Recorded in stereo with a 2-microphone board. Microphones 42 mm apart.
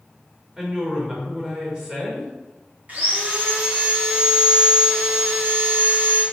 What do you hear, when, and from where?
0.6 s a woman speaking: 20° right (ahead or behind), 3 m
2.9 s sawing: 40° right (ahead or behind), 3 m